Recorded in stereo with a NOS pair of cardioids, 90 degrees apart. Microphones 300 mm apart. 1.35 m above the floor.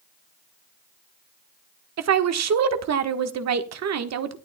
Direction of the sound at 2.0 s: 55° right.